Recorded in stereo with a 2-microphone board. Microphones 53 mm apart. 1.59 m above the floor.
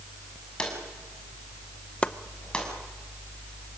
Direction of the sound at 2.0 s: 25° left (ahead or behind).